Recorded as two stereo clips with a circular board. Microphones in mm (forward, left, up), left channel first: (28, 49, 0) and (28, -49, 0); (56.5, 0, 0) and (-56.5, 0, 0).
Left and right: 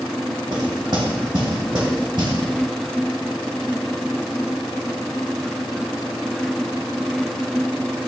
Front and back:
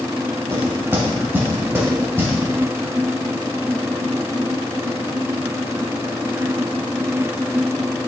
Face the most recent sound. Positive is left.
turn(degrees=-110)